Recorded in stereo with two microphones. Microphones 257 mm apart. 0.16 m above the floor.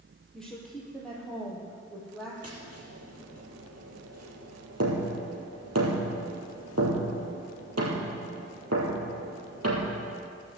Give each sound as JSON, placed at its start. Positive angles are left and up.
{"t": 0.3, "sound": "a woman speaking", "side_deg": 5, "distance_m": 4.5}
{"t": 2.4, "sound": "tapping", "side_deg": -75, "distance_m": 4.0}